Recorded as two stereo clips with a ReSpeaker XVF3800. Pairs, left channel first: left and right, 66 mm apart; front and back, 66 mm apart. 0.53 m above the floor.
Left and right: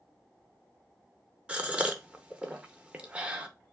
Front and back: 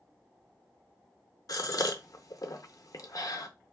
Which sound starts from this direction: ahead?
A gasp, at 1.5 s.